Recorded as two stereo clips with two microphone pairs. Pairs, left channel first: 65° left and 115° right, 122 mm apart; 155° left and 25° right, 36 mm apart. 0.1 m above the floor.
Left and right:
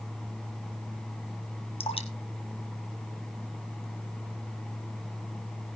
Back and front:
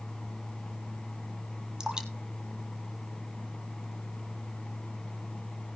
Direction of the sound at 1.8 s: 40° left.